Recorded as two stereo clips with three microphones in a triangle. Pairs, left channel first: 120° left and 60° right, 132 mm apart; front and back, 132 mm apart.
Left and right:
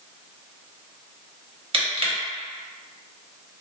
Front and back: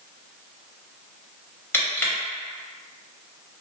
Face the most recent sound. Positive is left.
turn(degrees=-65)